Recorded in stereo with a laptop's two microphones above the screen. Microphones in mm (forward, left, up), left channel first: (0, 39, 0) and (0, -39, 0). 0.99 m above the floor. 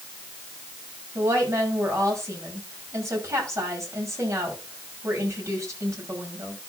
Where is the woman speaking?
40° right (ahead or behind), 6.5 m.